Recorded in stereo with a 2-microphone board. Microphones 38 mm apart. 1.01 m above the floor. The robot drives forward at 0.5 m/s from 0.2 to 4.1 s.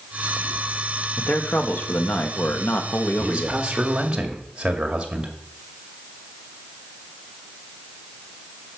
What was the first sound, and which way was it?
A man speaking, 55° left (ahead or behind).